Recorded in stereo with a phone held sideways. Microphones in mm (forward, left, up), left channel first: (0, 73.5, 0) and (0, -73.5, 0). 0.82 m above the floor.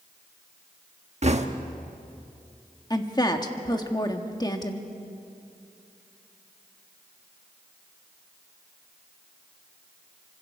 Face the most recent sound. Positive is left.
turn(degrees=25)  # may be behind; listen again after turning